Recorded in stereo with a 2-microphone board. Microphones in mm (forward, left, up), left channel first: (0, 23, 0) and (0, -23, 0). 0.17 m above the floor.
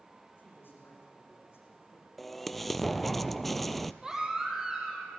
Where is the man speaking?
55° left (ahead or behind), 8.5 m; by 2.1 s 65° left (ahead or behind), 8.5 m.